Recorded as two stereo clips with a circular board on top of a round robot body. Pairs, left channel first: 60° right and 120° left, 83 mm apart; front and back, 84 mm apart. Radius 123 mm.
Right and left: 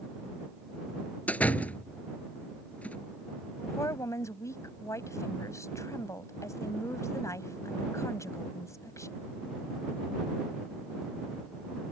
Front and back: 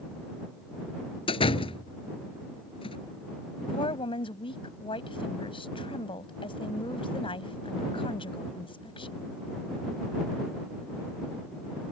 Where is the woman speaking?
5° right.